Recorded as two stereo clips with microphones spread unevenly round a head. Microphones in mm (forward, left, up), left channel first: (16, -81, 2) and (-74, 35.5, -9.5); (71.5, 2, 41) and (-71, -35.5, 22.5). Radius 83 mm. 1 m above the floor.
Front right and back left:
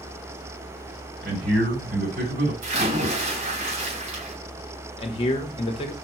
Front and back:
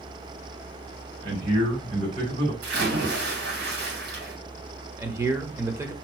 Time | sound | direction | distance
1.2 | a man speaking | 145° left | 4 m
2.6 | a splash | 165° left | 3 m
5.0 | a man speaking | 105° right | 1.2 m